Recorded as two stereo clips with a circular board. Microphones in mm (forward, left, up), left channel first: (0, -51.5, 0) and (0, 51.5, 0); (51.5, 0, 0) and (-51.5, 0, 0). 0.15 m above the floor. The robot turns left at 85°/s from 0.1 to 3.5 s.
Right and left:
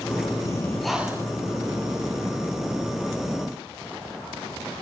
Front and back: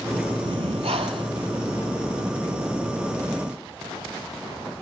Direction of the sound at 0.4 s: 140° right.